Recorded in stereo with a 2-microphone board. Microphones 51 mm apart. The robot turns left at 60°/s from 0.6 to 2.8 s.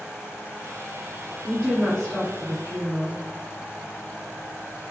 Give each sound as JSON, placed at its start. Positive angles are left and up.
{"t": 1.4, "sound": "a woman speaking", "azimuth_deg": -165, "distance_m": 2.0}